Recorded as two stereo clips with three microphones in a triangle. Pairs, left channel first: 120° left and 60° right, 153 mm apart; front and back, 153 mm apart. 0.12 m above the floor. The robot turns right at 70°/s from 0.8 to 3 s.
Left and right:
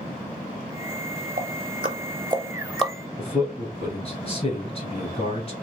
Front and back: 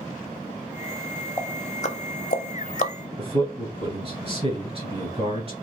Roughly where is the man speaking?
Behind left.